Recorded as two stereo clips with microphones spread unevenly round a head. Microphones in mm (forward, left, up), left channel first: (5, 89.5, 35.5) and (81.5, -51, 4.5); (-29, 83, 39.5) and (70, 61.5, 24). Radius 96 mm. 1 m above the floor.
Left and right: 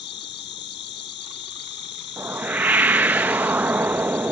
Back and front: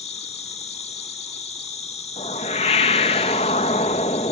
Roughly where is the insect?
Behind.